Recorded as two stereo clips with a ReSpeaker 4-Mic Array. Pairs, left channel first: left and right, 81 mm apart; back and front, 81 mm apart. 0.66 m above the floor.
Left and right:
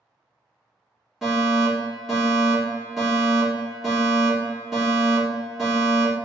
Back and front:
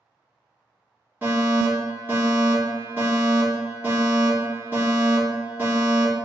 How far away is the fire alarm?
About 1.6 m.